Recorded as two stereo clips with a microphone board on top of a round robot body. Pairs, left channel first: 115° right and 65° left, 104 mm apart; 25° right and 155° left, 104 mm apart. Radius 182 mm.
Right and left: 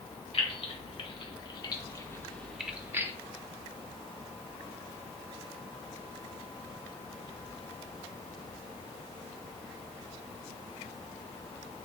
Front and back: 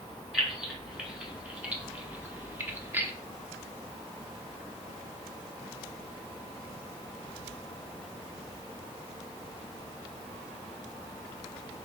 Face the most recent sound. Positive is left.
turn(degrees=105)